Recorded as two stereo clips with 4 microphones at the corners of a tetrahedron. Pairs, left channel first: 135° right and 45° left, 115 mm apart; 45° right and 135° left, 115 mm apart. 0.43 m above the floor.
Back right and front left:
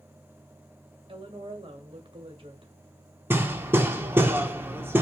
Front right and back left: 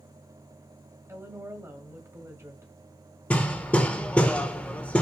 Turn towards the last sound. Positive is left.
turn(degrees=10)